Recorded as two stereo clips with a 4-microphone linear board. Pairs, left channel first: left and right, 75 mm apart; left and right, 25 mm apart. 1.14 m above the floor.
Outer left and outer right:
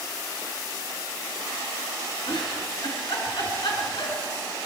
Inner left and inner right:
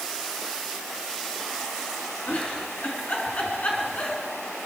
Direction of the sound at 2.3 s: 80° left.